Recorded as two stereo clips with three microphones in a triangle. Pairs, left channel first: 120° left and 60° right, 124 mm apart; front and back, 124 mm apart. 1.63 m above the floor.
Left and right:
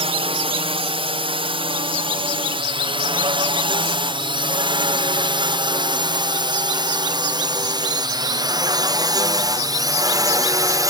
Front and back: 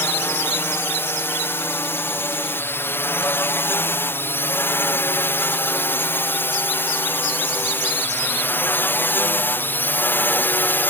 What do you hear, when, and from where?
0.0 s a drone: 65° right; by 10.9 s 55° right